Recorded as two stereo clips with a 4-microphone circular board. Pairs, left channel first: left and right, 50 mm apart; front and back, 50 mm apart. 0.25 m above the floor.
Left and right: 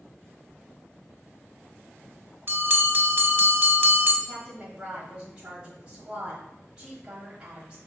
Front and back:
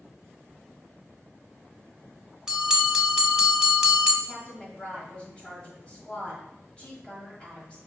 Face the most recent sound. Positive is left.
turn(degrees=-35)